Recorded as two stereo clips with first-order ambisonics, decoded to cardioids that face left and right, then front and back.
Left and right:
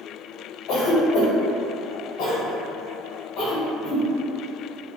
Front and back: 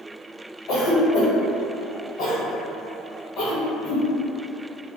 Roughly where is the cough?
Ahead left.